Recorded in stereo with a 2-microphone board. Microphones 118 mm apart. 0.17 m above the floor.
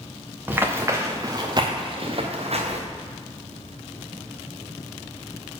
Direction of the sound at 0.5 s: 15° right (ahead or behind).